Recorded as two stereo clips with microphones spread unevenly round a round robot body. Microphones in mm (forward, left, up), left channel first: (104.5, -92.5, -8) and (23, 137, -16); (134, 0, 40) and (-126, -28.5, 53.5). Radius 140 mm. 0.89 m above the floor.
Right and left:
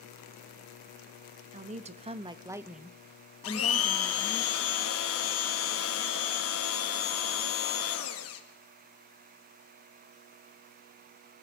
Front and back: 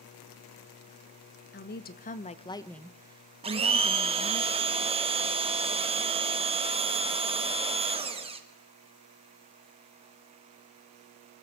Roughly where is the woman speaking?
Ahead left.